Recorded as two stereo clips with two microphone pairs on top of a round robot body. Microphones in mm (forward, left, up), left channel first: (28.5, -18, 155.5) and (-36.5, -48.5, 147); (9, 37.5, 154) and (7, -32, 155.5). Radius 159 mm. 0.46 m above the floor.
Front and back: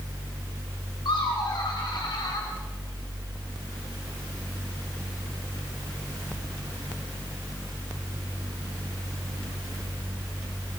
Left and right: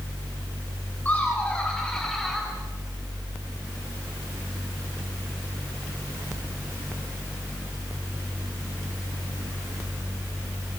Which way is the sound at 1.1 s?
25° left.